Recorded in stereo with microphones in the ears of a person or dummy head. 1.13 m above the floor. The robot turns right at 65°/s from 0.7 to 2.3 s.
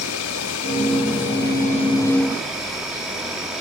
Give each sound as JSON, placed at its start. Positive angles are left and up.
{"t": 0.0, "sound": "an insect", "azimuth_deg": 70, "distance_m": 2.5}